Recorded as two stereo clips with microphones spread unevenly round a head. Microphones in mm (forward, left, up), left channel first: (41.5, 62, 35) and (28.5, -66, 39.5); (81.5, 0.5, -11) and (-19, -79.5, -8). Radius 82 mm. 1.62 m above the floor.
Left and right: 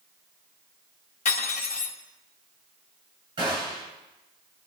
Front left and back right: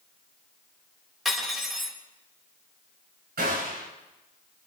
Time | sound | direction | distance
1.2 | cutlery clinking | 130° left | 2 m
3.4 | a gunshot | 155° right | 8.5 m